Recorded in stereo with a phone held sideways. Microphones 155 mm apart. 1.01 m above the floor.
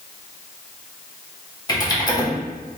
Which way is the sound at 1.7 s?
25° left (ahead or behind).